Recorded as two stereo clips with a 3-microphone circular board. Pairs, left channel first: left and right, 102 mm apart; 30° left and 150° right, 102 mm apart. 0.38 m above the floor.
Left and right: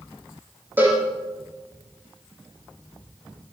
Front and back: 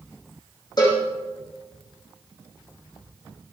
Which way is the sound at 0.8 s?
15° right.